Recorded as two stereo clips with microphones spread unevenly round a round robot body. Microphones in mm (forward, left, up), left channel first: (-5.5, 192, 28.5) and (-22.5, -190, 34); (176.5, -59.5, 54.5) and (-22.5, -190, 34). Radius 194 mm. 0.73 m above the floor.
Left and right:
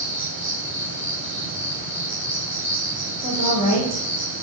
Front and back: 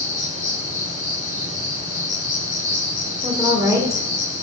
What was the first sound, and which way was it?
An insect, straight ahead.